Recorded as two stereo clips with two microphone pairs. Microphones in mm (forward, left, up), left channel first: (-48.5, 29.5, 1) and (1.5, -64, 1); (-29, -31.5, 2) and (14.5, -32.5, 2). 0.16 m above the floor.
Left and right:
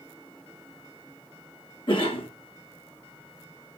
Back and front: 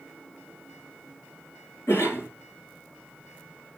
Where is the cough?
155° left, 3 m.